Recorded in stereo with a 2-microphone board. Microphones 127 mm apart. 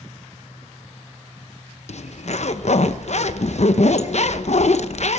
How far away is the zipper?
About 0.7 m.